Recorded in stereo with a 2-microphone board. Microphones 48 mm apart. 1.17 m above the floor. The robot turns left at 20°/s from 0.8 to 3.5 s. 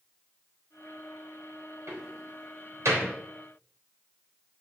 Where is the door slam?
75° right (ahead or behind), 3.5 m; by 3.1 s 80° right, 3.5 m.